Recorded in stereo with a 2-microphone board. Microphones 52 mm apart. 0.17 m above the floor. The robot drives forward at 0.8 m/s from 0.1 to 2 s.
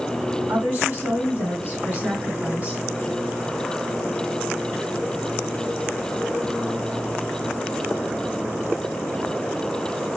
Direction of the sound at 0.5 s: 40° right (ahead or behind).